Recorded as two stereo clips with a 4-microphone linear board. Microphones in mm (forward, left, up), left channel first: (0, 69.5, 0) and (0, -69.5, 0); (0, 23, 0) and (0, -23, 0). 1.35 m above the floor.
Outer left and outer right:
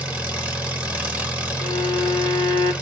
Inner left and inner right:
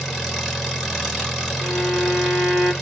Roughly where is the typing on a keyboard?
I don't hear typing on a keyboard.